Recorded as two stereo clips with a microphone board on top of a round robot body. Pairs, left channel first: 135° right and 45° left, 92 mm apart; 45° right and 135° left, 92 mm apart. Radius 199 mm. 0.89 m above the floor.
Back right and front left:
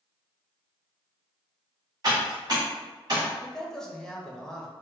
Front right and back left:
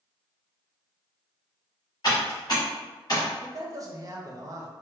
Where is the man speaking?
145° left, 0.8 m.